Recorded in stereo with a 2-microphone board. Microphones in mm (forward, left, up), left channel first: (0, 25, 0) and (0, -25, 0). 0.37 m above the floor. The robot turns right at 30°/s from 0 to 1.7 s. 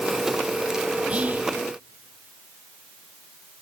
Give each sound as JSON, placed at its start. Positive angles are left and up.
{"t": 1.1, "sound": "whispering", "side_deg": -25, "distance_m": 1.2}